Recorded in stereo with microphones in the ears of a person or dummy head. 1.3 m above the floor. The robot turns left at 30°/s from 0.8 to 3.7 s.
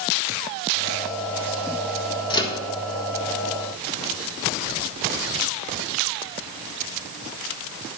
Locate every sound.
2.3 s a microwave: 25° left (ahead or behind), 1.4 m; by 2.6 s 15° left (ahead or behind), 1.4 m